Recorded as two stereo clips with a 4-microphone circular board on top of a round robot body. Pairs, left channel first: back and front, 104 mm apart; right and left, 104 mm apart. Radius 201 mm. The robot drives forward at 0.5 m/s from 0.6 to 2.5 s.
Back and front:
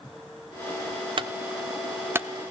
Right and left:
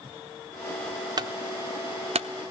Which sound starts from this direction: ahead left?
A clunk, at 1.2 s.